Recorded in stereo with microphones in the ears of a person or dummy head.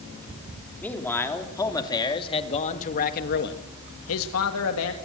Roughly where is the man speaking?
Centre.